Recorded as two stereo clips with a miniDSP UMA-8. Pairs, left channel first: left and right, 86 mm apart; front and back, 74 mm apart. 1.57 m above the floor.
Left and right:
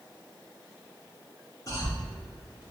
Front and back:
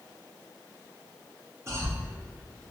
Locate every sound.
1.7 s a cough: 135° left, 0.8 m